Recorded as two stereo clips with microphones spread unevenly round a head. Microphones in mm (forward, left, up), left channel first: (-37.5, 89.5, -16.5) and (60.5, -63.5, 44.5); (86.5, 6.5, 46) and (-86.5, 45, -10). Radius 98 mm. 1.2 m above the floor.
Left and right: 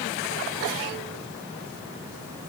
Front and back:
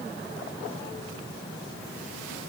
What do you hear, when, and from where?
Only background noise.